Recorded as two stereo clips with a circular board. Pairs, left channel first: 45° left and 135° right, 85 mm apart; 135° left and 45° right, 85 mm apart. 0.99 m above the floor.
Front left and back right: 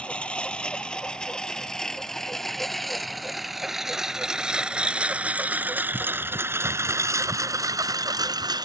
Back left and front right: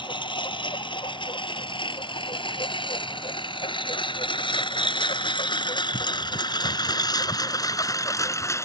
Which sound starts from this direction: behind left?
A lawn mower, at 0.0 s.